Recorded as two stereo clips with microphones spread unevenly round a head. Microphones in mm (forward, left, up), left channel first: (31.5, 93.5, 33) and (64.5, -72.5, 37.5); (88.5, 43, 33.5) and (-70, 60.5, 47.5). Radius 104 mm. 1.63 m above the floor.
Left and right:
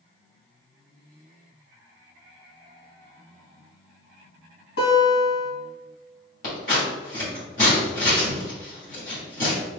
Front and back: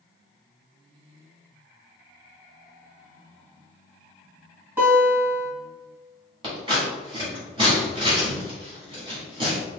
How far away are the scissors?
About 1.9 m.